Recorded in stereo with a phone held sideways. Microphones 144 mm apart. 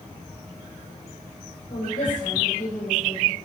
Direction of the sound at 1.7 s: 75° left (ahead or behind).